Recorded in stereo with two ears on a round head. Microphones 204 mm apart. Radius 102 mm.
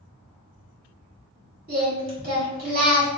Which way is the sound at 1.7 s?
40° right (ahead or behind).